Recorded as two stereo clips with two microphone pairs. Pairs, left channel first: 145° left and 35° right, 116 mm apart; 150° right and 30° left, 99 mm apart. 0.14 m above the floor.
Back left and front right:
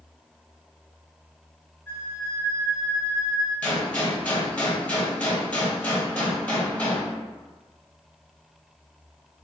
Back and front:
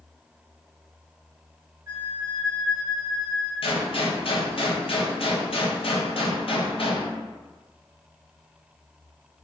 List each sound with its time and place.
1.9 s a flute: 80° left, 1.5 m
3.6 s a gunshot: 145° right, 0.7 m